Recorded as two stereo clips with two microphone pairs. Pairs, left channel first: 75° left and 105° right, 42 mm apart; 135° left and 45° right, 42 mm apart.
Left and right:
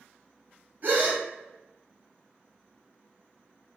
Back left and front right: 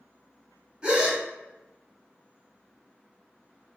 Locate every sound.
0.8 s a gasp: 105° right, 0.8 m